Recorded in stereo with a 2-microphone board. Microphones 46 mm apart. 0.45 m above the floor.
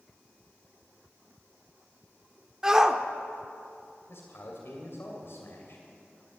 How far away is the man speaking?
About 2.5 m.